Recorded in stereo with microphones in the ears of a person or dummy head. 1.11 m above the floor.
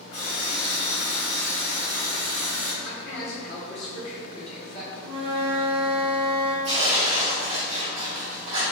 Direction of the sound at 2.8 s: 30° left (ahead or behind).